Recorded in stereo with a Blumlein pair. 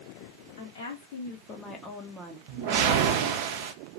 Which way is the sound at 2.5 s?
45° right.